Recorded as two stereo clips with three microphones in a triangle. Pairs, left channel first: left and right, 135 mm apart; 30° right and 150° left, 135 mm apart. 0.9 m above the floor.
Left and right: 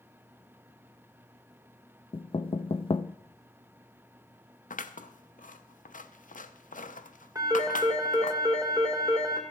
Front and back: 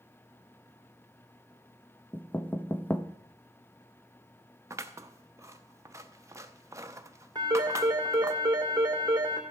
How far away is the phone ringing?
About 2.5 m.